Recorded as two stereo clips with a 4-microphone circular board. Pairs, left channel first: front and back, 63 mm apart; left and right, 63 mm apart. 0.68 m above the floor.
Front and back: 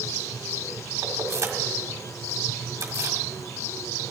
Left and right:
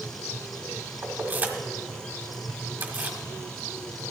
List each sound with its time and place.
1.0 s keys jangling: 150° right, 1.5 m